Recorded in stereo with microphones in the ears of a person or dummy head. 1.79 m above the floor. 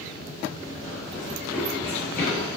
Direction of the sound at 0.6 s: 15° right (ahead or behind).